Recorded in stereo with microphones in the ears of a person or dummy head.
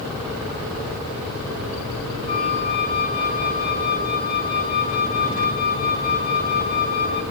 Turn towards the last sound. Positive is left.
turn(degrees=20)  # may be behind; listen again after turning